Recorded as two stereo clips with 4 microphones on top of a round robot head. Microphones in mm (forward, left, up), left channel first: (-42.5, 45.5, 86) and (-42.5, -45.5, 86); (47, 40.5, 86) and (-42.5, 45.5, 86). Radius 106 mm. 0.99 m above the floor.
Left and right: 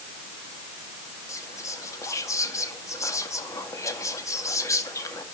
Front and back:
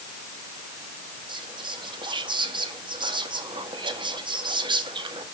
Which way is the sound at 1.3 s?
145° left.